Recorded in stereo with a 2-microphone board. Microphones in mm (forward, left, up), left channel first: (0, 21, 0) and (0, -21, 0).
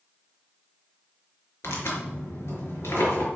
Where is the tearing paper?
70° left (ahead or behind), 4.5 m.